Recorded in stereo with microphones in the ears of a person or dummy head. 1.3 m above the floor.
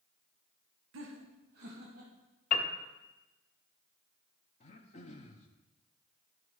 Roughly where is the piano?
Left.